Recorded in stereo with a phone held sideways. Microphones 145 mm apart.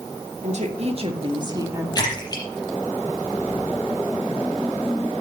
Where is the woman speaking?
55° right (ahead or behind), 2 m; by 1.9 s 20° right (ahead or behind), 1.7 m.